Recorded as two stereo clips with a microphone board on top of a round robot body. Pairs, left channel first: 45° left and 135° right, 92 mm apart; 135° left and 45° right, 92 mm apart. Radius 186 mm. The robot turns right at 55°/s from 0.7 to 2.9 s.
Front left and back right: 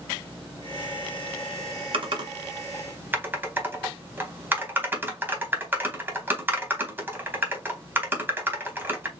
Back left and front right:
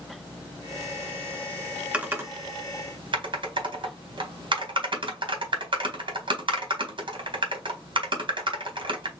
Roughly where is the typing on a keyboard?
Behind right.